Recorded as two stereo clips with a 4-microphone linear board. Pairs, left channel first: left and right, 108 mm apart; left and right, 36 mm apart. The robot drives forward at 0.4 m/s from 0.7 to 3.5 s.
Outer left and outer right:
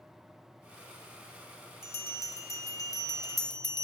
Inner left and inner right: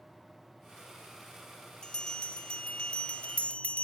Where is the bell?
25° left (ahead or behind), 1.0 m; by 3.9 s 35° left (ahead or behind), 0.7 m.